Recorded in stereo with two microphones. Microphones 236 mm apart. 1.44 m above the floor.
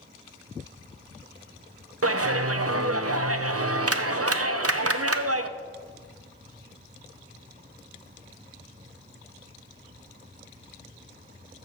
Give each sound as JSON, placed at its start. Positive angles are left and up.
{"t": 2.0, "sound": "a clap", "side_deg": -75, "distance_m": 0.6}